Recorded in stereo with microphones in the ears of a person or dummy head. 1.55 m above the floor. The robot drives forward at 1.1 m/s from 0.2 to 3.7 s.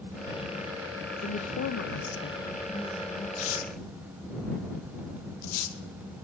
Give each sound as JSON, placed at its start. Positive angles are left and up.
{"t": 1.2, "sound": "a woman speaking", "side_deg": 35, "distance_m": 0.8}
{"t": 3.4, "sound": "tearing paper", "side_deg": 70, "distance_m": 1.3}